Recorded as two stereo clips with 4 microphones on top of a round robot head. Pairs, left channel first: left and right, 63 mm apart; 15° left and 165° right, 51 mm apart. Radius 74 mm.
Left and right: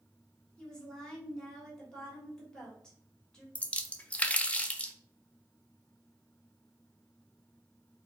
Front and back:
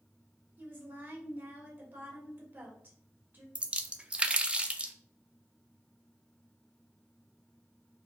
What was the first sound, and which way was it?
A woman speaking, 165° left.